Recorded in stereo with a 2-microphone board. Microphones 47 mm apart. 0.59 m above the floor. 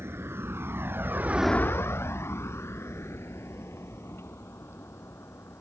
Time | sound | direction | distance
0.0 | a vehicle | 65° right (ahead or behind) | ?